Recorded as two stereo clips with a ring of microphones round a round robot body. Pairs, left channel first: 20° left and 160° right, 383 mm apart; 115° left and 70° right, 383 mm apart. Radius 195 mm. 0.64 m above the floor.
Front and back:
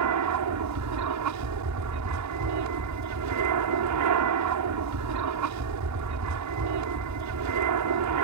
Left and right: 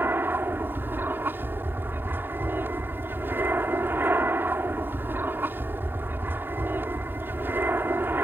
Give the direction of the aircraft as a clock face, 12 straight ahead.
5 o'clock.